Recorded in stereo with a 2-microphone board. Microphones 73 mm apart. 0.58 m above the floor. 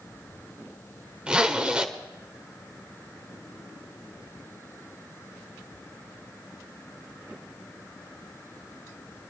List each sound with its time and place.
1.3 s a zipper: 15° right (ahead or behind), 1.4 m